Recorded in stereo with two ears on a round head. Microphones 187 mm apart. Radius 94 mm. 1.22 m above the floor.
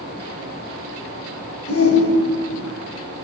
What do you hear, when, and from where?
1.7 s a shout: 75° left (ahead or behind), 8.5 m